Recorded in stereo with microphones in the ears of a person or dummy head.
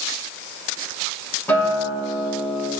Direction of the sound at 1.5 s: 10° left (ahead or behind).